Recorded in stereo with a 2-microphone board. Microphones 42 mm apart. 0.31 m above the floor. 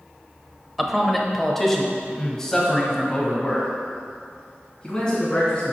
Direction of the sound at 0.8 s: Centre (ahead or behind).